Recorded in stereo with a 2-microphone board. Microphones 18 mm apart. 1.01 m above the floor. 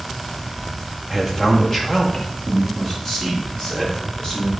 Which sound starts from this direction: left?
A man speaking, at 1.1 s.